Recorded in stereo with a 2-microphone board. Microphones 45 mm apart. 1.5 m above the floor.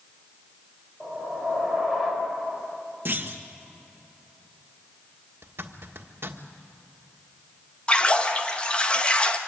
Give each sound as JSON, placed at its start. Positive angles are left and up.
{"t": 1.0, "sound": "a whoosh", "side_deg": 10, "distance_m": 4.5}
{"t": 3.0, "sound": "a clunk", "side_deg": -45, "distance_m": 1.5}
{"t": 5.4, "sound": "a zipper", "side_deg": -60, "distance_m": 1.5}
{"t": 7.9, "sound": "a splash", "side_deg": 25, "distance_m": 1.1}